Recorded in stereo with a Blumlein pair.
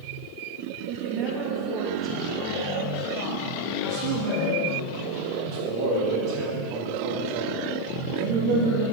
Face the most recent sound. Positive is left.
turn(degrees=-40)